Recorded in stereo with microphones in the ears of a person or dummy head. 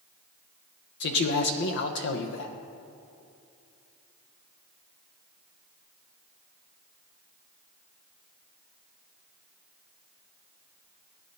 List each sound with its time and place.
1.0 s a man speaking: 70° left (ahead or behind), 1.1 m